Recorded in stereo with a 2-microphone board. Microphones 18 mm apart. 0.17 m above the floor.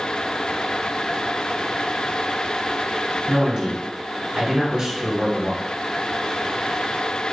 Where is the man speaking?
35° right (ahead or behind), 1.4 m.